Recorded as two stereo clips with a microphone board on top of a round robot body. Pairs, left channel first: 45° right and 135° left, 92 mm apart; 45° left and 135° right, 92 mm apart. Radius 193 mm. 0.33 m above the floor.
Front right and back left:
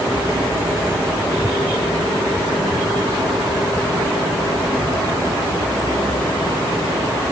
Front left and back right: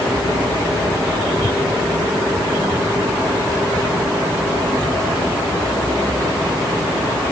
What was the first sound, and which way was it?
Only background noise.